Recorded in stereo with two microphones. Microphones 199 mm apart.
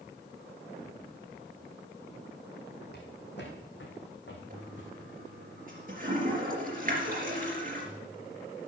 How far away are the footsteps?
About 3 m.